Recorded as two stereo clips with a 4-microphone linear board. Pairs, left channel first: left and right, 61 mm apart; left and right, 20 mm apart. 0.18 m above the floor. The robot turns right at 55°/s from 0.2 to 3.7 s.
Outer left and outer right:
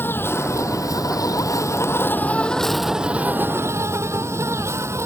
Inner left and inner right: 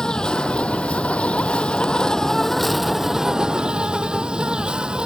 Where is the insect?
40° left; by 5.1 s 130° right.